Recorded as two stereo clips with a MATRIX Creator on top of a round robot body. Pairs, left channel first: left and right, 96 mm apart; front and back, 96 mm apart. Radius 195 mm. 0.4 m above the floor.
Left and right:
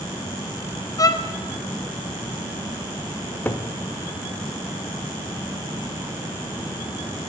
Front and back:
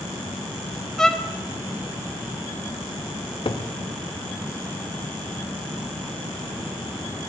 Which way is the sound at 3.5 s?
20° left.